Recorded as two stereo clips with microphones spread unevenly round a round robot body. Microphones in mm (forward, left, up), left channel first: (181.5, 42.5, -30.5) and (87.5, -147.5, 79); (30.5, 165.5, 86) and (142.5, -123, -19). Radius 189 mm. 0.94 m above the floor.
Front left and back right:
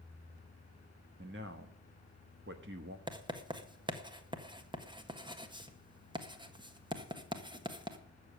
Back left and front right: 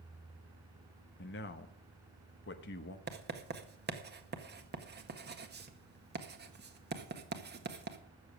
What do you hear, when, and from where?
1.2 s a man speaking: straight behind, 0.7 m
3.1 s writing: 30° right, 1.7 m